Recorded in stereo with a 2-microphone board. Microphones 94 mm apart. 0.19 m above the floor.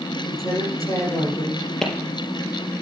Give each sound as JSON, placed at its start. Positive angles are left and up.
{"t": 0.3, "sound": "a man speaking", "side_deg": 40, "distance_m": 6.5}
{"t": 1.8, "sound": "a clap", "side_deg": 5, "distance_m": 4.0}